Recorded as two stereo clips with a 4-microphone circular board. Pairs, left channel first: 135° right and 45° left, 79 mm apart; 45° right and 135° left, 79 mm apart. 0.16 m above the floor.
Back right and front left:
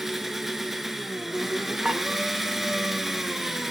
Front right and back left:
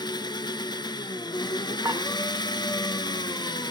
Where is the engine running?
40° right, 0.7 m.